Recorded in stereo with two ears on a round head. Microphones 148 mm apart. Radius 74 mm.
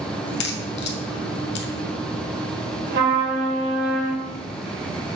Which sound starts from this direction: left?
A crack, at 0.2 s.